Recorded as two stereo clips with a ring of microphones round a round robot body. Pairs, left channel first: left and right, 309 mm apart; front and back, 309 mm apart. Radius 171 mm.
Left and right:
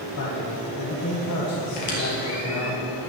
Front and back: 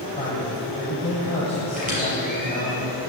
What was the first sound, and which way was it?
A man speaking, 70° left.